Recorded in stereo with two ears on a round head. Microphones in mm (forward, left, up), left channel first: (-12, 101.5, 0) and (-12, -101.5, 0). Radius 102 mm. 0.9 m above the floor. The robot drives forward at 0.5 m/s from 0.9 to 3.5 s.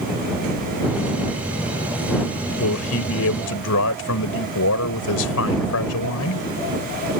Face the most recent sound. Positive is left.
turn(degrees=75)  # may be behind; listen again after turning